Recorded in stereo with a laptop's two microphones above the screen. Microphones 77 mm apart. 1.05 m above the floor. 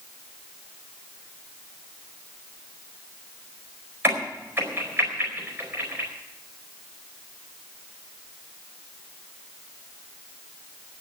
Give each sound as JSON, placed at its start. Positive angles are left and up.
{"t": 4.0, "sound": "a crack", "side_deg": -30, "distance_m": 4.5}